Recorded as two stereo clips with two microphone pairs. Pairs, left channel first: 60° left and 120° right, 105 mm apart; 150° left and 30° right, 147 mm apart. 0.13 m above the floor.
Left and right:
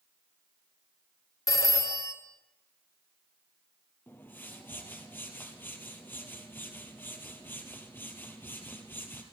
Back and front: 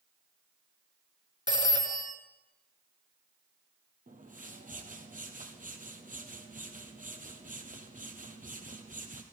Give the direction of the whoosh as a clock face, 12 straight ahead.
12 o'clock.